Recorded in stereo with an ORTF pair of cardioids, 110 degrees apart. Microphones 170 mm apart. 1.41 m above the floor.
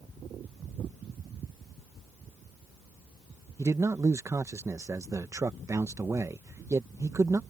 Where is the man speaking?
20° right.